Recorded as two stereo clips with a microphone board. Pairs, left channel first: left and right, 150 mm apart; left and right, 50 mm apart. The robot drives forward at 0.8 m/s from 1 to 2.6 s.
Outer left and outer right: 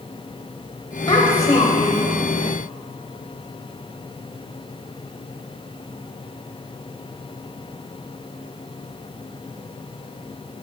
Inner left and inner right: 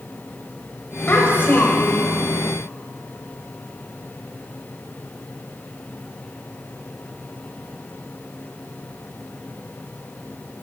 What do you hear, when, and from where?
1.1 s a child speaking: 35° left (ahead or behind), 0.9 m; by 2.1 s 40° left (ahead or behind), 0.8 m